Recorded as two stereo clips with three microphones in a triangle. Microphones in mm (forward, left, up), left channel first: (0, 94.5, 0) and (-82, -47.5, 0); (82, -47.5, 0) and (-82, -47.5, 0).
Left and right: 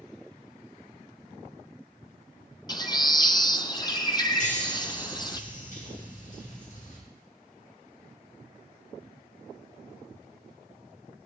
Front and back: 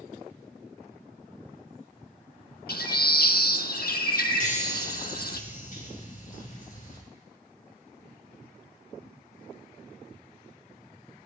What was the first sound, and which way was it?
A bird, straight ahead.